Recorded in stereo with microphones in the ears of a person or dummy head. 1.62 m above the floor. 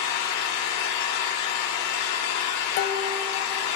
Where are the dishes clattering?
50° left (ahead or behind), 1.0 m.